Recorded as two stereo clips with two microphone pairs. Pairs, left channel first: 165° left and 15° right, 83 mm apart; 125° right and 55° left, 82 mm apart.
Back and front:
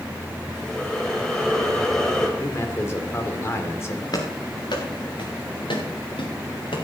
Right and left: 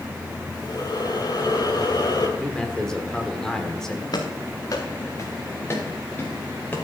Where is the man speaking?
160° left, 1.6 m.